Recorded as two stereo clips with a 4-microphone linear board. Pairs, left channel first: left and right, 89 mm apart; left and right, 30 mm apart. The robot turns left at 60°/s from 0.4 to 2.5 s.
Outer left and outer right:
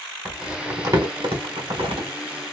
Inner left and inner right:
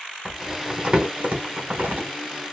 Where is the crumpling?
15° right (ahead or behind), 1.4 m; by 2.1 s 65° right (ahead or behind), 1.4 m.